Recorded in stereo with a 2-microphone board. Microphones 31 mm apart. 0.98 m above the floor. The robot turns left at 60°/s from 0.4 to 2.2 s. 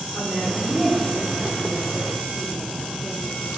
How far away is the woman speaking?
About 2.5 m.